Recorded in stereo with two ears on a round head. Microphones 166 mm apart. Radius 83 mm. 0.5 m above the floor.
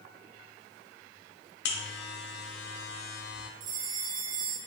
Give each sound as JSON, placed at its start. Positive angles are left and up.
{"t": 1.6, "sound": "a buzzer", "side_deg": 60, "distance_m": 0.6}
{"t": 3.6, "sound": "a bell", "side_deg": -50, "distance_m": 0.8}